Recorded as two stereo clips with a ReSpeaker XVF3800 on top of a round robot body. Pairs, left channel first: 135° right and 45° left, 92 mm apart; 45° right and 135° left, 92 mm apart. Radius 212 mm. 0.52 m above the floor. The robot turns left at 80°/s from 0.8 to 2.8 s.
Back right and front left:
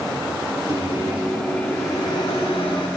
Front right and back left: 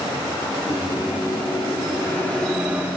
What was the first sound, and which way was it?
A microwave, 5° left.